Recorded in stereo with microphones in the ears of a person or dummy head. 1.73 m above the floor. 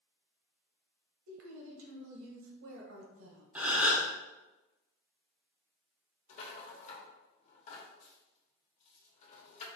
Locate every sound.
1.3 s a woman speaking: 85° right, 1.0 m
3.5 s a gasp: 10° right (ahead or behind), 0.7 m
6.3 s a rattle: 45° left (ahead or behind), 1.0 m